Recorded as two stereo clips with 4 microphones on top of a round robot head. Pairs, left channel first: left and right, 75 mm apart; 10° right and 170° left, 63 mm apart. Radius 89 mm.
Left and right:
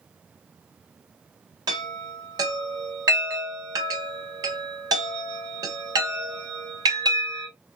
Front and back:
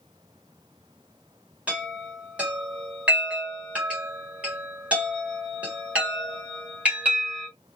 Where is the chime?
120° right, 1.3 m.